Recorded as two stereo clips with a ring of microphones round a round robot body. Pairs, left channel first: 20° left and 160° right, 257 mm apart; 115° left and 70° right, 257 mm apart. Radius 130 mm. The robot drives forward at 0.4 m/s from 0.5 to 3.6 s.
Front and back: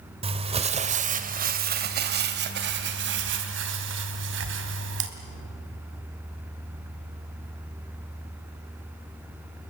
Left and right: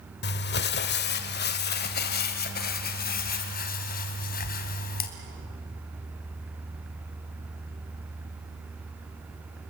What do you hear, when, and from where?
0.2 s crumpling: 145° left, 1.2 m; by 5.1 s 165° left, 2 m